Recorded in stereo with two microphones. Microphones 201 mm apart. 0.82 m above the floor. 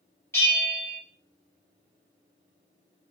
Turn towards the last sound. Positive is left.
turn(degrees=15)  # may be behind; listen again after turning